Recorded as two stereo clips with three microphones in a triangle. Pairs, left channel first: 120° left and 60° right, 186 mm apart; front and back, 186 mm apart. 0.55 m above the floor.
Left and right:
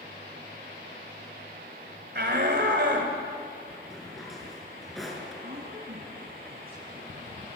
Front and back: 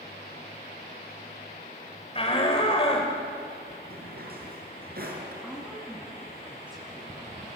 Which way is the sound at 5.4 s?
100° right.